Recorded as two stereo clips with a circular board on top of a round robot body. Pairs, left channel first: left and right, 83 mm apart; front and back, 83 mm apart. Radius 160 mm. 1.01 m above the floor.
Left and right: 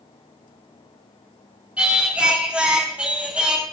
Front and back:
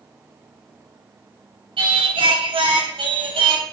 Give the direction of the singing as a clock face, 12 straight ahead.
6 o'clock.